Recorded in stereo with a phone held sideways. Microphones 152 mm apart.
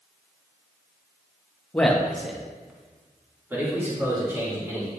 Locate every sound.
1.7 s a man speaking: 10° left (ahead or behind), 1.0 m; by 4.9 s 20° right (ahead or behind), 3.5 m